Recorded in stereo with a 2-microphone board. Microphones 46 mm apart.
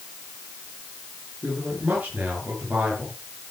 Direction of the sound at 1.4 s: 35° right (ahead or behind).